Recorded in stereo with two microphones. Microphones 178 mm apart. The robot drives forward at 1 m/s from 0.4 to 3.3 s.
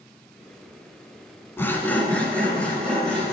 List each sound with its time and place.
1.6 s sawing: 15° left (ahead or behind), 0.8 m; by 3.3 s 5° left (ahead or behind), 2.5 m